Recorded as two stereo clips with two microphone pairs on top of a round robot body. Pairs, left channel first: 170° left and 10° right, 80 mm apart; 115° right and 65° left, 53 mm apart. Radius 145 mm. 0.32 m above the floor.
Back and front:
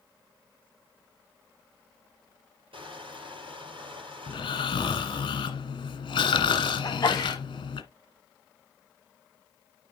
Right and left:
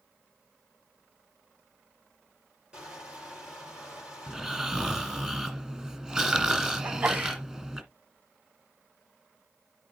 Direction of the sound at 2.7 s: 5° right.